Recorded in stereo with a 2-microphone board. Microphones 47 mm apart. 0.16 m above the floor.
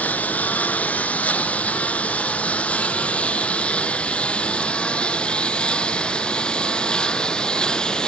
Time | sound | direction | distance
0.0 | a lawn mower | 35° left (ahead or behind) | ?